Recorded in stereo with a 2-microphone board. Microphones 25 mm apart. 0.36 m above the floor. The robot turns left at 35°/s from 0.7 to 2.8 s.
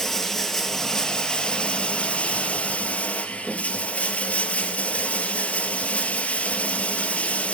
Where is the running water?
165° left, 2 m; by 7.5 s 90° left, 2 m.